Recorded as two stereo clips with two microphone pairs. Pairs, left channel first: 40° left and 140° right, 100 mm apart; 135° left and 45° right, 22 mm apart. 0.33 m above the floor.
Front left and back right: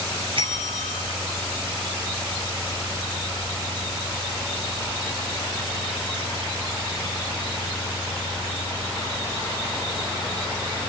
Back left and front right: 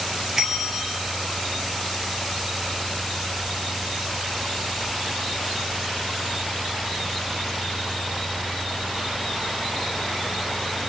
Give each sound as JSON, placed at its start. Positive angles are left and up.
{"t": 0.4, "sound": "a bell", "azimuth_deg": -115, "distance_m": 2.5}